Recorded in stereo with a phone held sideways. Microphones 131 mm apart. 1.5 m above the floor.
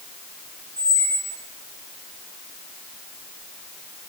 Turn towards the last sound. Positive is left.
turn(degrees=25)  # may be behind; listen again after turning